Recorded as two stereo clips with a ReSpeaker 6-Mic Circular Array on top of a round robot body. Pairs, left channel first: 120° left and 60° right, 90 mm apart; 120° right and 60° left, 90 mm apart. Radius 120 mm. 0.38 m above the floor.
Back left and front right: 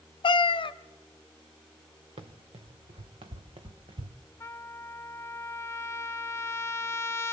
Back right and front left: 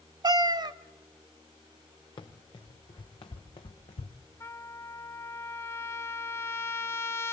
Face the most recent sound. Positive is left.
turn(degrees=-175)